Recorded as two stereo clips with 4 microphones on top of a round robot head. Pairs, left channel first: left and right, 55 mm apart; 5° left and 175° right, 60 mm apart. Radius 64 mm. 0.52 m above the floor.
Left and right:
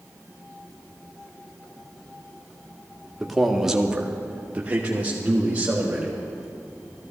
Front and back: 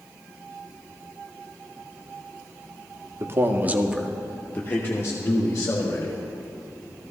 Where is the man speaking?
Straight behind, 1.2 m; by 6.1 s 25° right, 2.5 m.